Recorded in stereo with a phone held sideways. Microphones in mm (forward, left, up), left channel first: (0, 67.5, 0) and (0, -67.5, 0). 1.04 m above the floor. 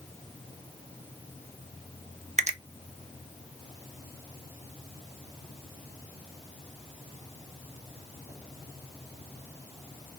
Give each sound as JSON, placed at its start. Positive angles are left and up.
{"t": 2.4, "sound": "a finger snap", "side_deg": -55, "distance_m": 0.6}